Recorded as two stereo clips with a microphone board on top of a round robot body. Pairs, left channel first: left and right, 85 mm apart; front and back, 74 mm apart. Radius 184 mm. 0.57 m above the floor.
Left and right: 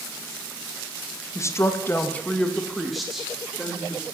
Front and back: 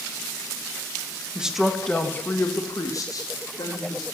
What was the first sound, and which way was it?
A woman speaking, 110° left.